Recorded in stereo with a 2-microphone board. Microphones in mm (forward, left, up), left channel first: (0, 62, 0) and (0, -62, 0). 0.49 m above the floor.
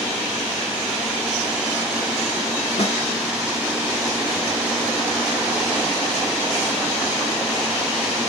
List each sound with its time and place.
2.8 s a snare drum: 55° left (ahead or behind), 3 m